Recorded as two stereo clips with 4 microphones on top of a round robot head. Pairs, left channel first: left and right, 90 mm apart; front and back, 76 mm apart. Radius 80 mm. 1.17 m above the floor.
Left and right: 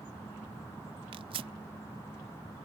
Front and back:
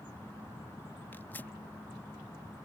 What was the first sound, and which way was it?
Tearing paper, 70° right.